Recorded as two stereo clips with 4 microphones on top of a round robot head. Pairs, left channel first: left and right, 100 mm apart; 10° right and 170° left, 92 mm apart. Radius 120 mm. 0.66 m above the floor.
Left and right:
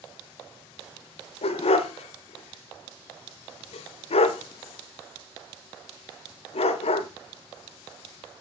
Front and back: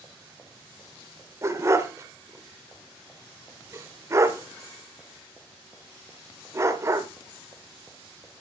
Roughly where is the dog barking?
Left.